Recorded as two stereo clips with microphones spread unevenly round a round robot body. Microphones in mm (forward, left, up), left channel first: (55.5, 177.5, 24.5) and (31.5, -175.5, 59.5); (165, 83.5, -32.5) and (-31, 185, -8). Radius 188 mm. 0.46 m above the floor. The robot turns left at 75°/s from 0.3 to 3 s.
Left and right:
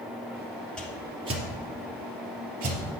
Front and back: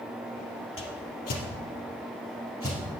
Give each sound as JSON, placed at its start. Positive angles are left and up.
{"t": 0.8, "sound": "a whoosh", "azimuth_deg": 0, "distance_m": 3.0}